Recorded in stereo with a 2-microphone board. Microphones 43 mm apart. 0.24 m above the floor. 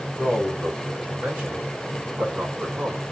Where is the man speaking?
25° right (ahead or behind), 1.7 m; by 3.0 s 50° right (ahead or behind), 2 m.